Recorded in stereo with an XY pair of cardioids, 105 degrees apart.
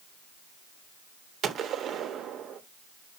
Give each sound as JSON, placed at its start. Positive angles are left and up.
{"t": 1.4, "sound": "a gunshot", "azimuth_deg": -70, "distance_m": 0.9}